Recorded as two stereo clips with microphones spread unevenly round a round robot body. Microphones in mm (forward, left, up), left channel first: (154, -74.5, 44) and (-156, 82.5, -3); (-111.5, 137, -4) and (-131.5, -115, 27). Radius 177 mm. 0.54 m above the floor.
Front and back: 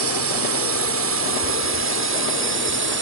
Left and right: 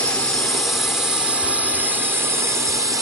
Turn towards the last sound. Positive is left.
turn(degrees=-175)